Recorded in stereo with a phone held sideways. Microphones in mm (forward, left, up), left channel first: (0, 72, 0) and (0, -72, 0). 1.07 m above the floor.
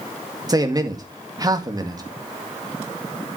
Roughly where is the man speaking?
Right.